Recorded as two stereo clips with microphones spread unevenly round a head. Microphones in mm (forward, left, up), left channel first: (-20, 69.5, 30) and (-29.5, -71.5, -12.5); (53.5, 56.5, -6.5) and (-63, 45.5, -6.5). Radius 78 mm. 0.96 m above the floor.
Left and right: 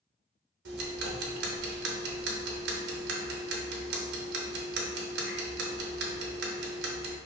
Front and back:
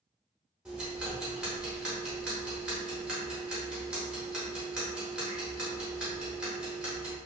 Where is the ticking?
90° right, 0.6 m.